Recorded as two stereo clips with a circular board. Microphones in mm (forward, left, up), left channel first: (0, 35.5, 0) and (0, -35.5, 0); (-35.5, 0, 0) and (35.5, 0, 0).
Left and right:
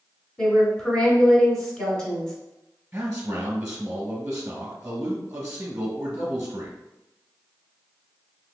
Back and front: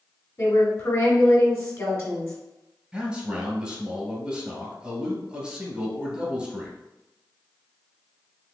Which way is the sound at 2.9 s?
50° right.